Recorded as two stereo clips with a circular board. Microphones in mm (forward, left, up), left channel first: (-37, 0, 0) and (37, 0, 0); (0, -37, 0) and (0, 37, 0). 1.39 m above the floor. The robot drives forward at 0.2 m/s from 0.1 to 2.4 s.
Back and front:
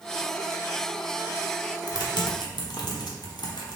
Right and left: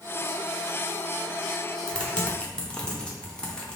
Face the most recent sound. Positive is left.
turn(degrees=-165)